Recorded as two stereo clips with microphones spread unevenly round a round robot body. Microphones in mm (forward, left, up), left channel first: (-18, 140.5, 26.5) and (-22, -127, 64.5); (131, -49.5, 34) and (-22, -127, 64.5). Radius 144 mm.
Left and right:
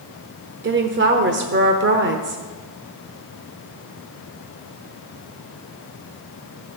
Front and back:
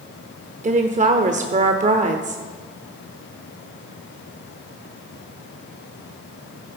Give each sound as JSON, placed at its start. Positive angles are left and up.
{"t": 0.6, "sound": "a woman speaking", "azimuth_deg": -120, "distance_m": 1.1}